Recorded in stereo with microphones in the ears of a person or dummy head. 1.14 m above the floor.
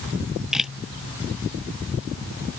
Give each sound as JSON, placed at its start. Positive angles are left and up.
{"t": 0.1, "sound": "a camera shutter", "side_deg": 0}